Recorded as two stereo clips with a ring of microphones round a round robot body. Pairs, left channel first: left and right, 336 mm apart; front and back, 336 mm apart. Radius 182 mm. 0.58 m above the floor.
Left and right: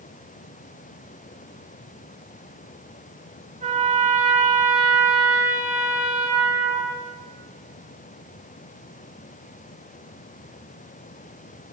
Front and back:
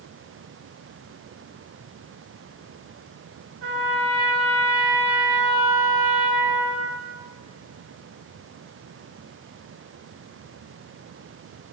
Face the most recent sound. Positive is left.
turn(degrees=-160)